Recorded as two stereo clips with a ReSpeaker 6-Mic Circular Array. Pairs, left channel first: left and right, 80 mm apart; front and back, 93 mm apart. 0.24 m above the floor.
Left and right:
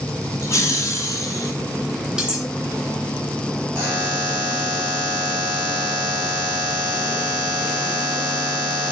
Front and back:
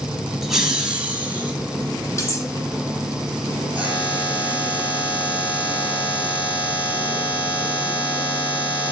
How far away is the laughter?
About 1.3 m.